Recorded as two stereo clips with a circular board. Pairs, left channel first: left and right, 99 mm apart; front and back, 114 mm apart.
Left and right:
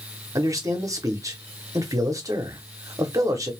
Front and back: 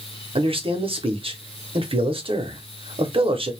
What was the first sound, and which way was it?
A man speaking, 145° right.